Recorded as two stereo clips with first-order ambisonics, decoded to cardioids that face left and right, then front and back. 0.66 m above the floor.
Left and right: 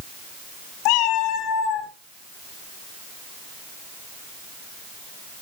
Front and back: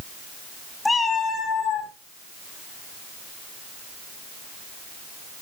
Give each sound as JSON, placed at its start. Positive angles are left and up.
{"t": 0.8, "sound": "a cat meowing", "azimuth_deg": 80, "distance_m": 1.5}